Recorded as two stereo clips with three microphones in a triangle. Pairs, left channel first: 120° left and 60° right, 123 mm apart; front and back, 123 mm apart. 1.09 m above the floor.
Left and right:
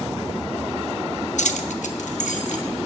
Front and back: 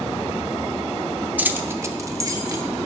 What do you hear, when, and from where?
1.4 s keys jangling: 105° left, 0.6 m; by 2.6 s 120° left, 1.3 m